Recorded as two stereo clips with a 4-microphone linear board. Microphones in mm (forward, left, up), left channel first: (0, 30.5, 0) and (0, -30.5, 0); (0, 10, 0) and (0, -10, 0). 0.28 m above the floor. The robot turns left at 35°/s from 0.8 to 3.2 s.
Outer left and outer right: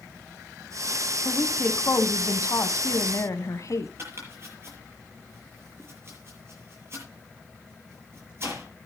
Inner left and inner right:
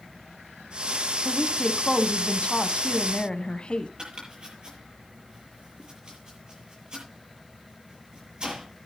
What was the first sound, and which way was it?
A woman speaking, 145° left.